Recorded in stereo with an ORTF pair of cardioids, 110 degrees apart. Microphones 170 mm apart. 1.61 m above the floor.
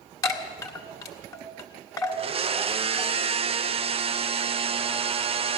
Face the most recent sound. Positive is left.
turn(degrees=-35)